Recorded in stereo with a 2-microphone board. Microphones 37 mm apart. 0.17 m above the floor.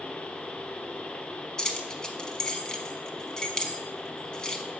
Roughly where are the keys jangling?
Left.